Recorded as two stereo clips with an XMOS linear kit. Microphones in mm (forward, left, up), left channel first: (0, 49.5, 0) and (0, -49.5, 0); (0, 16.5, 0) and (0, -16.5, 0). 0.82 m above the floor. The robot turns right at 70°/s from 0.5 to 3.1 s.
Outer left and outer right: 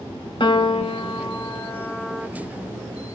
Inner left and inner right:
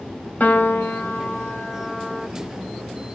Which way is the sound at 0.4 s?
65° left.